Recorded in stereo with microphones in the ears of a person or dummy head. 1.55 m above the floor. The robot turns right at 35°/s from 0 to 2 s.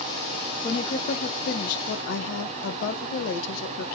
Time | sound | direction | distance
0.6 | a woman speaking | 30° left | 0.7 m